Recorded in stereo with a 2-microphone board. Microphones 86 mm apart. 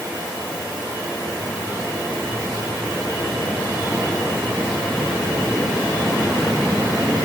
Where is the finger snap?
I don't hear a finger snap.